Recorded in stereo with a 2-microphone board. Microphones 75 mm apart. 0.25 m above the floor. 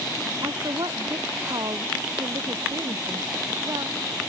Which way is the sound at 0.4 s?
65° right (ahead or behind).